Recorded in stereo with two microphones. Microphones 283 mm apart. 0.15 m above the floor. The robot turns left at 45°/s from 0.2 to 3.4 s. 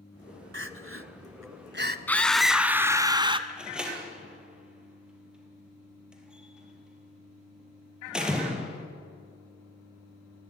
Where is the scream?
5° left (ahead or behind), 1.2 m; by 3.4 s 20° right (ahead or behind), 1.2 m.